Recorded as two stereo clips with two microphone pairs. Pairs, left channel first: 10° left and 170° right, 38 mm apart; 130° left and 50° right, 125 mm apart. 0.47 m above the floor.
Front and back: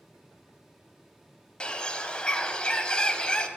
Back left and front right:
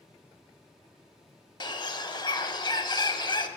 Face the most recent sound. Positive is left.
turn(degrees=75)